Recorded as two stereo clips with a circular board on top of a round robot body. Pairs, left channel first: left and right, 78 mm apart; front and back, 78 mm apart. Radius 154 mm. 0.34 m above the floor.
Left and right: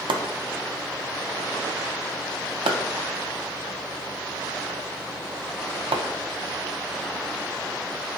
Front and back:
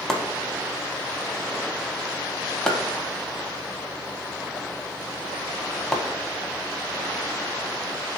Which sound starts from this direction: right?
Chopping, at 0.1 s.